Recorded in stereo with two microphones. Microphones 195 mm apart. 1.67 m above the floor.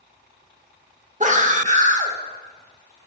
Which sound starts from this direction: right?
A scream, at 1.2 s.